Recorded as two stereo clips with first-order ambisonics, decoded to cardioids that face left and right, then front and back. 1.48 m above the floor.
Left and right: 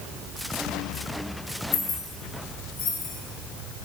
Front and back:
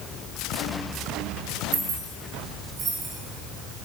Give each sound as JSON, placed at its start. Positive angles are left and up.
{"t": 1.7, "sound": "keys jangling", "azimuth_deg": 130, "distance_m": 1.4}